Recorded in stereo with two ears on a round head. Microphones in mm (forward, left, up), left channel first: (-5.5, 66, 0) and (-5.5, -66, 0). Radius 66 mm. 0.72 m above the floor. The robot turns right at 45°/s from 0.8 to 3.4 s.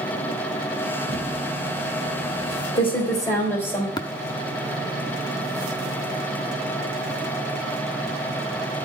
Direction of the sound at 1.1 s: 55° left (ahead or behind).